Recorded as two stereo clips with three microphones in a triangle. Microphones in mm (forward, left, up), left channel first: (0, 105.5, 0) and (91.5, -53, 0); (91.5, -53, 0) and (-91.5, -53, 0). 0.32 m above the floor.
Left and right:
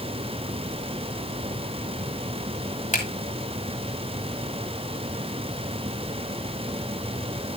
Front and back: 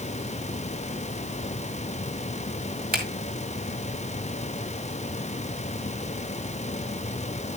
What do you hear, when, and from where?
2.9 s a finger snap: 160° left, 2.5 m